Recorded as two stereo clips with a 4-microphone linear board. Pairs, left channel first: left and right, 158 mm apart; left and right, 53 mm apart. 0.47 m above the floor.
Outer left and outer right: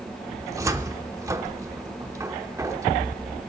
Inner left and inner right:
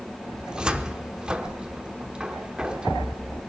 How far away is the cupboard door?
About 0.7 m.